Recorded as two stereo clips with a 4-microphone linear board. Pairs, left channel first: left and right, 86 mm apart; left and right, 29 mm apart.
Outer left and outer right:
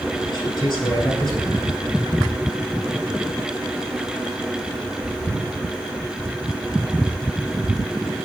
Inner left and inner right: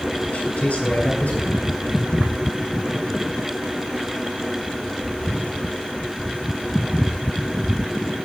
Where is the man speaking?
50° left (ahead or behind), 6.5 m.